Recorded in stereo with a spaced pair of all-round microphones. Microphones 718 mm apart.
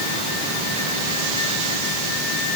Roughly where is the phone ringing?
No phone ringing in this recording.